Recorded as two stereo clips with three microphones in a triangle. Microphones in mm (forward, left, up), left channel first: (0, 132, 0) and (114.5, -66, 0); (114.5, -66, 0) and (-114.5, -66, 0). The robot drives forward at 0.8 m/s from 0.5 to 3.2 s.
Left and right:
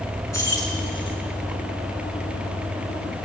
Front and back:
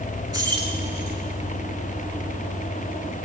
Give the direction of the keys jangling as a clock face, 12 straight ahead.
7 o'clock.